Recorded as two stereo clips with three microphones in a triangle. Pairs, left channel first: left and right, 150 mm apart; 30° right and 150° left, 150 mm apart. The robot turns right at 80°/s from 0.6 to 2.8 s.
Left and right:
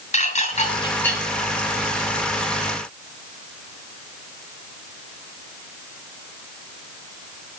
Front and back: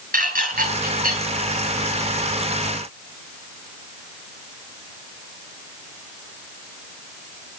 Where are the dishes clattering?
130° left, 7.5 m; by 1.2 s straight behind, 7.5 m.